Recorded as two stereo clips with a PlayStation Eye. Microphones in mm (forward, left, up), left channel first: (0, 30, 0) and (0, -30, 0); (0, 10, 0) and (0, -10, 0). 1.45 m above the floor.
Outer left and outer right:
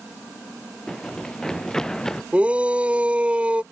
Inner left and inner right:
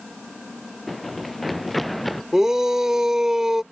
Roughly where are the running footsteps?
Centre.